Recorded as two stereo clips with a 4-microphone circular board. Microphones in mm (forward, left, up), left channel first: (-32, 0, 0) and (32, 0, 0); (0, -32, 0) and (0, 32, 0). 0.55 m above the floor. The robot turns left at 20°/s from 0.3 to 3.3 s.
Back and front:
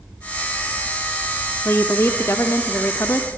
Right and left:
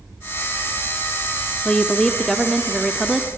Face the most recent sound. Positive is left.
turn(degrees=170)